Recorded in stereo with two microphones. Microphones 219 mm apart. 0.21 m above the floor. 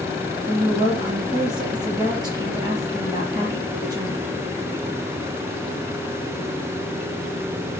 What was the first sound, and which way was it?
A woman speaking, 20° right (ahead or behind).